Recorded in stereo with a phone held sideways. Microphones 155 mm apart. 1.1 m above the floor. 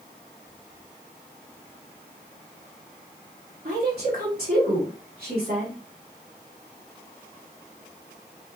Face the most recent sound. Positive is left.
turn(degrees=-85)